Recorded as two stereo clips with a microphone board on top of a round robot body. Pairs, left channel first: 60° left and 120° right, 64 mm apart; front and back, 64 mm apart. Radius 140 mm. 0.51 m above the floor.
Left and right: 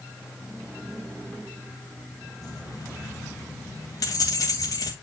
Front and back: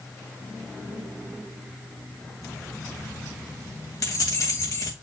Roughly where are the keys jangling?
Ahead left.